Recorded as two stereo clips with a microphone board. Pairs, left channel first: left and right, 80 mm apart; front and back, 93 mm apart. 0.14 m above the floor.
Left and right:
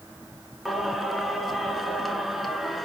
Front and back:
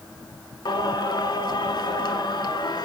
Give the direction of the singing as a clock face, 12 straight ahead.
12 o'clock.